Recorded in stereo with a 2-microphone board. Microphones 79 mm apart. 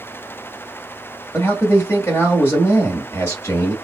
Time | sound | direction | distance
1.3 | a man speaking | 35° left (ahead or behind) | 1.4 m